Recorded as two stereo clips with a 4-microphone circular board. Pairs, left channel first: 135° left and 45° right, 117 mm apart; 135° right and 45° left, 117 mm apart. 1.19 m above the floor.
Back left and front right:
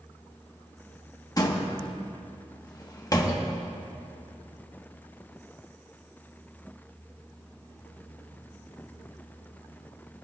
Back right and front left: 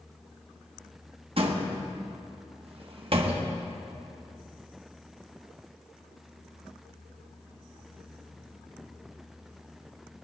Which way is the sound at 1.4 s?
80° left.